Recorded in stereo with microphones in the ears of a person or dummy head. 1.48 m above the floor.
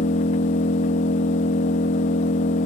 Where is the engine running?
25° left (ahead or behind), 0.8 m.